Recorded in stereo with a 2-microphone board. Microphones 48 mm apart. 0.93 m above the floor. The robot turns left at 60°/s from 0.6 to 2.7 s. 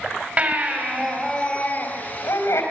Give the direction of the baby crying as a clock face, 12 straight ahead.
5 o'clock.